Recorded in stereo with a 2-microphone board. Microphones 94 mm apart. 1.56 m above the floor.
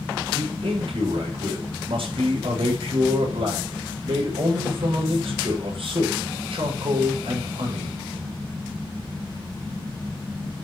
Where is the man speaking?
70° right (ahead or behind), 7.5 m.